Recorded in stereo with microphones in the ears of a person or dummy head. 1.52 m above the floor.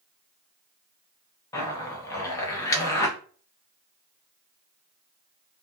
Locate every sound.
1.5 s a zipper: 15° left (ahead or behind), 0.7 m